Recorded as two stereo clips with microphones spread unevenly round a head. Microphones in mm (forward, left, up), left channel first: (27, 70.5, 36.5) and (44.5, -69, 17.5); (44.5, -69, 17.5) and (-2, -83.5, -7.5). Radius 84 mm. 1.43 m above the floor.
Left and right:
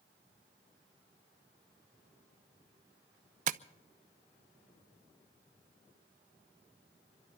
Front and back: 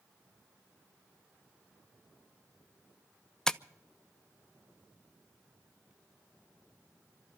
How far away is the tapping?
About 0.5 m.